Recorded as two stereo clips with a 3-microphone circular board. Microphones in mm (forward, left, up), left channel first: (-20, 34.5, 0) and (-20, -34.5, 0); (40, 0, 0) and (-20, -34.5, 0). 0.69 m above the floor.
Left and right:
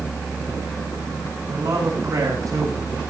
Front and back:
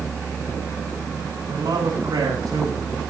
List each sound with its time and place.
1.5 s a man speaking: 130° right, 7.5 m; by 2.9 s 115° right, 8 m